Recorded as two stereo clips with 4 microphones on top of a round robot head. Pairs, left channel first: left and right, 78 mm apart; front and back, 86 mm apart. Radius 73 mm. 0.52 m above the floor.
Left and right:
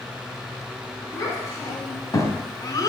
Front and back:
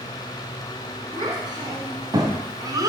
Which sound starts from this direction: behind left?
A child speaking, at 1.1 s.